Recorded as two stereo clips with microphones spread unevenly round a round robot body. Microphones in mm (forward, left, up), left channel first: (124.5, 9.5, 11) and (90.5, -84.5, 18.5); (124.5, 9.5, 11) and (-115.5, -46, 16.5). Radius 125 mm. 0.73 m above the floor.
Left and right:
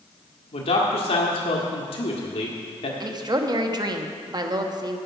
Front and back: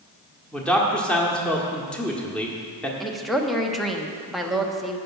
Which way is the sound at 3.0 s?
75° right.